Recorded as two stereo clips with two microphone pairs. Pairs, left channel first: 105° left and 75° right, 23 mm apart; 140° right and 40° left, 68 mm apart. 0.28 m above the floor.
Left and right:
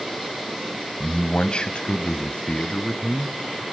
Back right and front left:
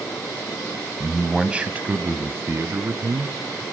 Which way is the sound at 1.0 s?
130° left.